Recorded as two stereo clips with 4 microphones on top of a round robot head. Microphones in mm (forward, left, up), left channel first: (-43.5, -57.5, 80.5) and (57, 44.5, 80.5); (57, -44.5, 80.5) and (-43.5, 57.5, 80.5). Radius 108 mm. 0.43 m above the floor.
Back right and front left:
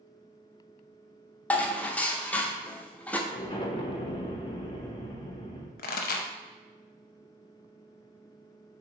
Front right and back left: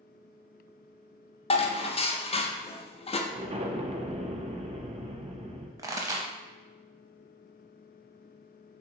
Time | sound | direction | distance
1.5 | dishes clattering | 60° right | 0.8 m
3.3 | an explosion | 175° left | 0.8 m
5.8 | a pop | 160° right | 0.5 m